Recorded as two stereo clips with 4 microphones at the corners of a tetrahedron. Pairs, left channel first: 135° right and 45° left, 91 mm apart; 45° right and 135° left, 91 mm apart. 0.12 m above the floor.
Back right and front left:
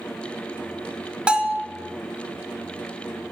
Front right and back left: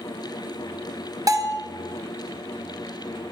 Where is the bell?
120° left, 0.7 m.